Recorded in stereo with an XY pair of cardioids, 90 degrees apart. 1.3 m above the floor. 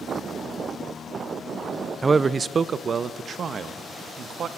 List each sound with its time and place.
2.0 s a man speaking: 30° right, 0.6 m; by 4.5 s 65° right, 2 m